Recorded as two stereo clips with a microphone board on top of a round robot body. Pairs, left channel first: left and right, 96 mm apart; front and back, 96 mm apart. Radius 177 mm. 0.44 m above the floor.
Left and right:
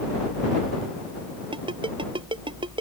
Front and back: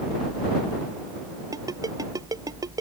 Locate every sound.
1.5 s a ringtone: 125° right